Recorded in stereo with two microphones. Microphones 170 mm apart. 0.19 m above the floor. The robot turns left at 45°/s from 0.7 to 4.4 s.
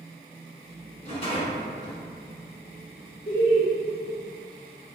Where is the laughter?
50° right (ahead or behind), 1.8 m; by 3.7 s 55° right (ahead or behind), 1.8 m.